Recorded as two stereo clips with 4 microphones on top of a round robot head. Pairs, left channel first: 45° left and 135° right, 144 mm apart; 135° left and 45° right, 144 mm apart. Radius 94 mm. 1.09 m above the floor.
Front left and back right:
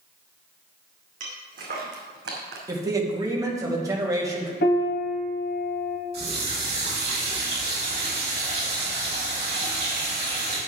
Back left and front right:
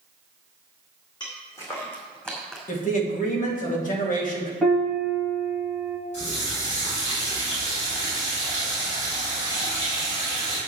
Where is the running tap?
Straight behind, 5 m.